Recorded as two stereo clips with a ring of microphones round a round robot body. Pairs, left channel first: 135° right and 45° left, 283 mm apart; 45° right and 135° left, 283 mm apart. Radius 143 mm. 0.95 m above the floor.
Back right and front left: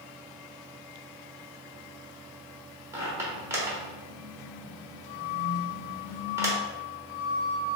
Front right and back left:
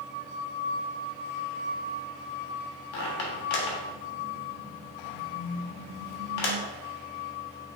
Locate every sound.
2.9 s a squeak: 35° right, 1.1 m